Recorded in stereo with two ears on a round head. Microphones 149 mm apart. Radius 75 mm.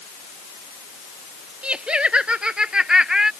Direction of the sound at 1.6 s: 5° right (ahead or behind).